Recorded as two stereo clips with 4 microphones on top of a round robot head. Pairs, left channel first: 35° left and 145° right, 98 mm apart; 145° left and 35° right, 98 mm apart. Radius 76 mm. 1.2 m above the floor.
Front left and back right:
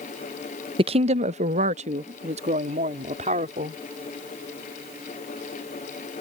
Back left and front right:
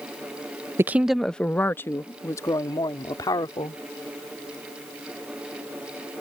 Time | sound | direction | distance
0.8 | a woman speaking | 105° right | ?